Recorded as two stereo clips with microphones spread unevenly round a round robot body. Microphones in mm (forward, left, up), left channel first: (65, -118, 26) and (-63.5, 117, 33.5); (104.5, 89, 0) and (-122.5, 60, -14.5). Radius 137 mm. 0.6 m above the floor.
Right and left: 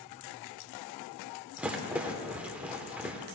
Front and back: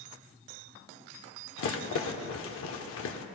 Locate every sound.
1.6 s a rattle: 35° left, 0.9 m